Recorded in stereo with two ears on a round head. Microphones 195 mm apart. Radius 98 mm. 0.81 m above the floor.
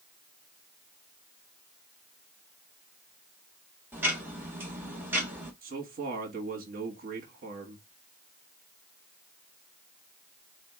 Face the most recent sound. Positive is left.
turn(degrees=-45)  # may be behind; listen again after turning